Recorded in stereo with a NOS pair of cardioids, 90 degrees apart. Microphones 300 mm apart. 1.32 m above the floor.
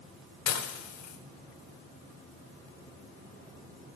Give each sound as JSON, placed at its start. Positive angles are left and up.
{"t": 0.5, "sound": "dishes clattering", "azimuth_deg": 65, "distance_m": 3.5}